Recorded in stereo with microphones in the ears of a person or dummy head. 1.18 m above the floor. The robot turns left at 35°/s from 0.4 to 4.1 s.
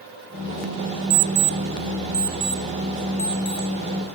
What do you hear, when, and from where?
1.1 s an alarm clock: 55° right (ahead or behind), 0.7 m; by 4.2 s 40° left (ahead or behind), 0.7 m